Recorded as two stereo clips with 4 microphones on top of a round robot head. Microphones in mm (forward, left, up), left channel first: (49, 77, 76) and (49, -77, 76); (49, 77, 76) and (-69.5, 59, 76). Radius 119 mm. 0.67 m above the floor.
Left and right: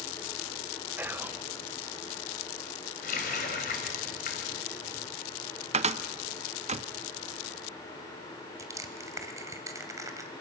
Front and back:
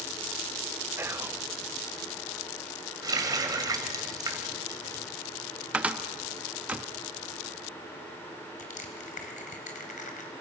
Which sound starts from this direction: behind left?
A running tap, at 3.0 s.